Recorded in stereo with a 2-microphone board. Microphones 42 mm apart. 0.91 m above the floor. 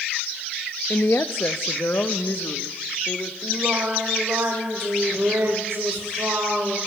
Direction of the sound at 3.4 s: 80° right.